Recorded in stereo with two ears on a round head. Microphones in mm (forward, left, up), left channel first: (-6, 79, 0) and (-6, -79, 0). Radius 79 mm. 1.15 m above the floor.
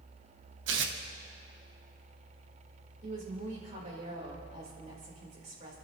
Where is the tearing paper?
75° right (ahead or behind), 1.2 m.